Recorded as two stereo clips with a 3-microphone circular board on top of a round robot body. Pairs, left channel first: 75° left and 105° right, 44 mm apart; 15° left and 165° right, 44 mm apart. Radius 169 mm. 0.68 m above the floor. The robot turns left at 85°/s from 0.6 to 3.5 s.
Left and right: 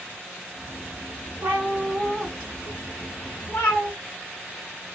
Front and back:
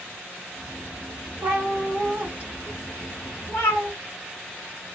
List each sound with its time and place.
1.4 s a cat meowing: 145° right, 0.6 m; by 3.9 s 40° left, 0.6 m